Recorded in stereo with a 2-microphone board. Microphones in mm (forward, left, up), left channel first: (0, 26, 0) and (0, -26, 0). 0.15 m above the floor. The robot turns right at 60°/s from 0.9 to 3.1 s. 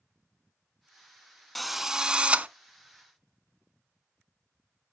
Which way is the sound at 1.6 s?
170° left.